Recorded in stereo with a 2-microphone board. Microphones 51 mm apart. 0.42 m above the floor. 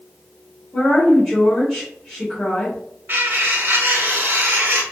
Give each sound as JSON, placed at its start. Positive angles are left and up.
{"t": 0.7, "sound": "a woman speaking", "side_deg": 5, "distance_m": 2.0}
{"t": 3.1, "sound": "cutlery clinking", "side_deg": -40, "distance_m": 1.0}